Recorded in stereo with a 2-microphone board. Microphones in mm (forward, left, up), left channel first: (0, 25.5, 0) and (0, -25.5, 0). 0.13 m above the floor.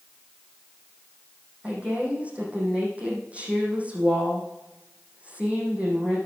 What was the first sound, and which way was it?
A woman speaking, 25° right (ahead or behind).